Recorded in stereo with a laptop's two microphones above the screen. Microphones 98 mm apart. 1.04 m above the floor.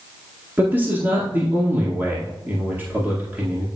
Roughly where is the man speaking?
Right.